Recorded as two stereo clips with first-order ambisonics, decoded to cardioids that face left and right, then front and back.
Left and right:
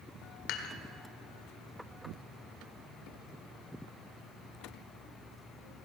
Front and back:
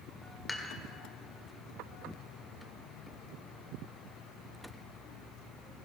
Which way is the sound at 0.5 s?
80° left.